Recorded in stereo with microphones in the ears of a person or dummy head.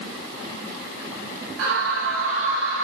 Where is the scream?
80° right, 7 m; by 2.9 s 75° right (ahead or behind), 5.5 m.